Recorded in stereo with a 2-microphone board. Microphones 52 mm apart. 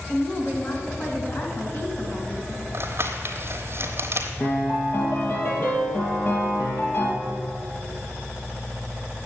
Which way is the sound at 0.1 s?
45° left (ahead or behind).